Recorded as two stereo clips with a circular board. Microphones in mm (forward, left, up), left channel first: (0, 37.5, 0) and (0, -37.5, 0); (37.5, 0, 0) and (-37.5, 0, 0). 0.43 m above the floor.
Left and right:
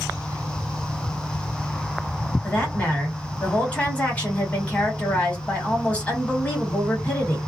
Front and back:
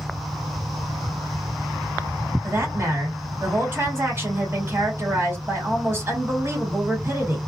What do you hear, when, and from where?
2.4 s a woman speaking: 150° left, 1.6 m